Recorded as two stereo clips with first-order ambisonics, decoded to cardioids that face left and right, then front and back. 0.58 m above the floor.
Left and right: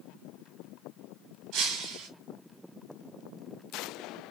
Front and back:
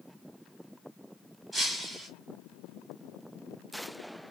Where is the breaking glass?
100° right, 2 m.